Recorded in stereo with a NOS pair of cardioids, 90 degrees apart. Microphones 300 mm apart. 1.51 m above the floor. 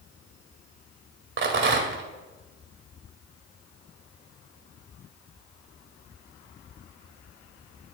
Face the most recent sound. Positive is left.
turn(degrees=-40)